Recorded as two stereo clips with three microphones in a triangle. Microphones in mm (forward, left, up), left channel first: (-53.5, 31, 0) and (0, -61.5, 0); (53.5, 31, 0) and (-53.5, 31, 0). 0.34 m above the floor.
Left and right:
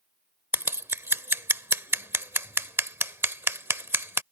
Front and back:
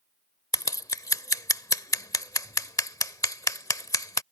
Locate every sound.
0.5 s scissors: 15° right